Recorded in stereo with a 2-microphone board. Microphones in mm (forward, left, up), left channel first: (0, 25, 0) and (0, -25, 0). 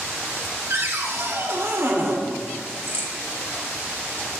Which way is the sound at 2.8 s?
45° right (ahead or behind).